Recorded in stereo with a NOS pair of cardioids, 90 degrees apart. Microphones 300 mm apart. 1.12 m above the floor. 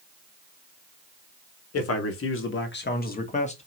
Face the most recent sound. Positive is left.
turn(degrees=20)